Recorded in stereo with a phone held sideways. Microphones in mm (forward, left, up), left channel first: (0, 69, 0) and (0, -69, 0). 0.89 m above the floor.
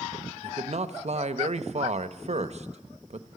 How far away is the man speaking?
About 0.6 m.